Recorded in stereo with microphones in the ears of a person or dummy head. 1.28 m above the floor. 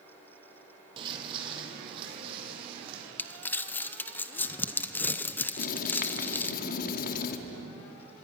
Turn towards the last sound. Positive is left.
turn(degrees=55)  # may be behind; listen again after turning